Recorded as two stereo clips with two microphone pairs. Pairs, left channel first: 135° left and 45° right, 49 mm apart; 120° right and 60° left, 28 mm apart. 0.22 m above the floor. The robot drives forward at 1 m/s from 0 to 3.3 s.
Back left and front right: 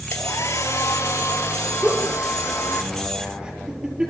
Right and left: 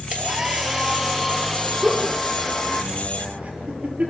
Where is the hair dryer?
115° left, 1.6 m; by 2.8 s 155° left, 3.5 m.